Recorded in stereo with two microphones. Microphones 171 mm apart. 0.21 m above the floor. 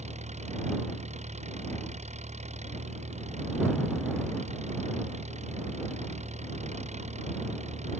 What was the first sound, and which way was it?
An engine running, 40° right (ahead or behind).